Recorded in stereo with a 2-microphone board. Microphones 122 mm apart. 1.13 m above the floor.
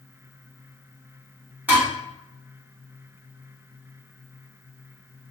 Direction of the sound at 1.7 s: 15° right (ahead or behind).